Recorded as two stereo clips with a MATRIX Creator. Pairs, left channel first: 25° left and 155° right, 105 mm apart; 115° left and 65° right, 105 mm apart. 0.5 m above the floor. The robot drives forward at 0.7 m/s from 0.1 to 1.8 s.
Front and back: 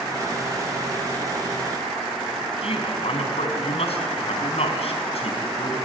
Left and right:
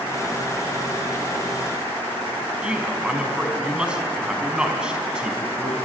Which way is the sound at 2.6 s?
15° left.